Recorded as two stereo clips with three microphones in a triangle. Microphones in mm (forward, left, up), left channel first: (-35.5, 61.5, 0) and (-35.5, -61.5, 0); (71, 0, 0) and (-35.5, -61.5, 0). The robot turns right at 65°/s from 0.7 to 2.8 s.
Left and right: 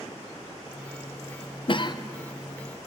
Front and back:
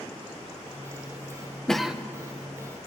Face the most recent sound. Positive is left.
turn(degrees=-175)